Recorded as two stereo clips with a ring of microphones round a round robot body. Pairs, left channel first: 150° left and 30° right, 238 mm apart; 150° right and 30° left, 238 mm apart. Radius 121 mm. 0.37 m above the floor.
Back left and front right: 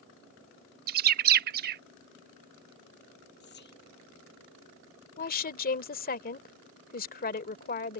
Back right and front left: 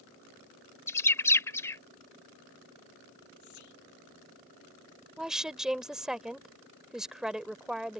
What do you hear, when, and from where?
0.9 s a bird: 70° right
3.4 s whispering: 160° right
5.2 s a woman speaking: 115° left